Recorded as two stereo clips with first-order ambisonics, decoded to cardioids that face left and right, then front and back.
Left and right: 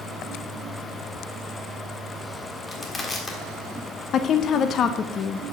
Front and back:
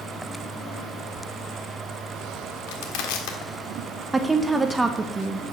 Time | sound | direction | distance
2.7 | crushing | 15° left | 1.5 m
4.1 | a woman speaking | 105° left | 0.6 m